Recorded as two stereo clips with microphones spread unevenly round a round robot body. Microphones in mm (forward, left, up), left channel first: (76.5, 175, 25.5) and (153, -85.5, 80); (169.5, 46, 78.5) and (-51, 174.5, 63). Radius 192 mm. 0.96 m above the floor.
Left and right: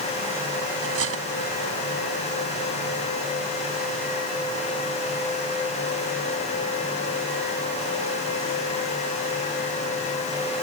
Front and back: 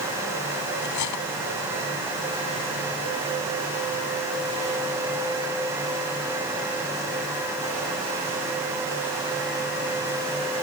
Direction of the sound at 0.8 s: 40° right.